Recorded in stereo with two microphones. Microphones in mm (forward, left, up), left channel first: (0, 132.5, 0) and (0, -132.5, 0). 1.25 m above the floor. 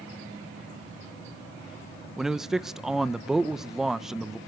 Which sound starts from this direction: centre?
A man speaking, at 2.2 s.